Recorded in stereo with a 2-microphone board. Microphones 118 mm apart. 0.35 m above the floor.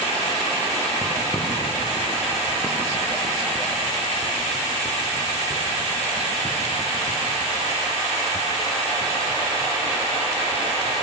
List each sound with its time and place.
1.0 s footsteps: 15° right (ahead or behind), 6.5 m; by 10.9 s 55° left (ahead or behind), 9 m